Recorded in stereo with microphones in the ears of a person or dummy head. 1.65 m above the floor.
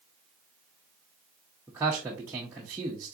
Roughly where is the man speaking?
Centre.